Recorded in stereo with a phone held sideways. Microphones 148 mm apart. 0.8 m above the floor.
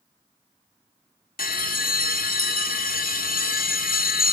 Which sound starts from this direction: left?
A bell, at 1.4 s.